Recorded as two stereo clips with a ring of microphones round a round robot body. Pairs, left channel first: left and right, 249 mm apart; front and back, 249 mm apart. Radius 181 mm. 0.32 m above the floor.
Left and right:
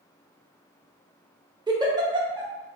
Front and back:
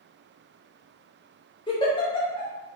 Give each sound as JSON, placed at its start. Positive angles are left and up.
{"t": 1.7, "sound": "a giggle", "azimuth_deg": -40, "distance_m": 1.1}